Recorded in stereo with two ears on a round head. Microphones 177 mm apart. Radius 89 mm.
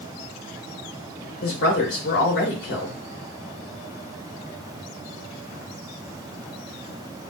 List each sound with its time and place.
1.4 s a woman speaking: 55° left (ahead or behind), 1.0 m